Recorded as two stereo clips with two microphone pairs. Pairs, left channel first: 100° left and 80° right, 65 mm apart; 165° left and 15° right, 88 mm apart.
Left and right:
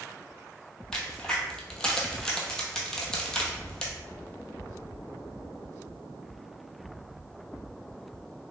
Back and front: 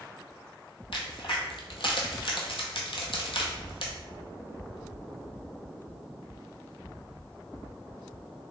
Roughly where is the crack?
Behind.